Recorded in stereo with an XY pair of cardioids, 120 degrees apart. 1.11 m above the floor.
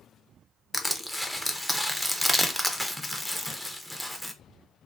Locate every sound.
0.7 s crushing: straight ahead, 0.5 m